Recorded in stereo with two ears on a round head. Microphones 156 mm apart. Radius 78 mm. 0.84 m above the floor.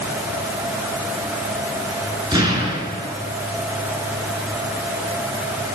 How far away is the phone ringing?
No phone ringing in this recording.